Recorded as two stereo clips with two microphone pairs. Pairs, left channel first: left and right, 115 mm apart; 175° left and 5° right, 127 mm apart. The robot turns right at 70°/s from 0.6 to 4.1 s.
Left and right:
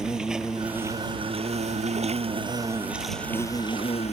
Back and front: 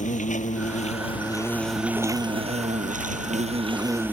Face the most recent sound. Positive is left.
turn(degrees=70)